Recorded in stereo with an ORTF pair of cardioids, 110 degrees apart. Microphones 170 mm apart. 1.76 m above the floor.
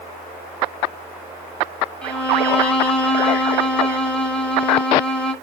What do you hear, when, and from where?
2.0 s a violin: 5° left, 2 m